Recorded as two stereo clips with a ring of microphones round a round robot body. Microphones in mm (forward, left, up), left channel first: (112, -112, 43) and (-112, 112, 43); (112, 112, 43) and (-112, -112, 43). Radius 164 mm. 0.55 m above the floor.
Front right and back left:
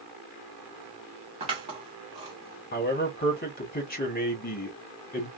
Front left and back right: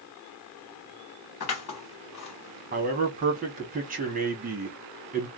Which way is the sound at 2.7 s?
90° right.